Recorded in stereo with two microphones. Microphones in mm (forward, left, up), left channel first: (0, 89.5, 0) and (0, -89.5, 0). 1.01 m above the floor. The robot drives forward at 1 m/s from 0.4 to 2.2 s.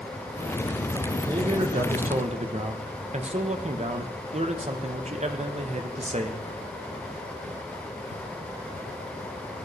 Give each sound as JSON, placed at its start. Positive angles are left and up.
{"t": 1.3, "sound": "a man speaking", "side_deg": -25, "distance_m": 0.9}